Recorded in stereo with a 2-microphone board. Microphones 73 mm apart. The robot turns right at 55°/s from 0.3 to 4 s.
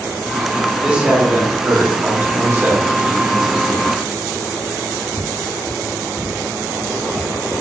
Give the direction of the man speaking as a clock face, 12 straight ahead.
5 o'clock.